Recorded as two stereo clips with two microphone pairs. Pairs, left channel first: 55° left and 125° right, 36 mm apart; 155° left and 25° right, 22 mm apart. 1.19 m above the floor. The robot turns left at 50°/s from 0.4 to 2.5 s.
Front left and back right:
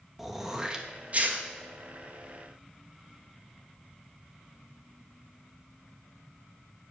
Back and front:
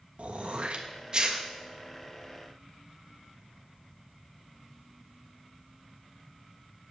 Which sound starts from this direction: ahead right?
Throat clearing, at 0.2 s.